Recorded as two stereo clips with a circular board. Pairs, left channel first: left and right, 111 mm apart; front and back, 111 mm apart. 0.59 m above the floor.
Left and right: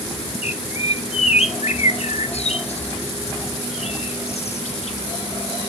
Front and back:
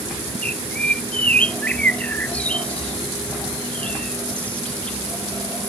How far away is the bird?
About 0.6 m.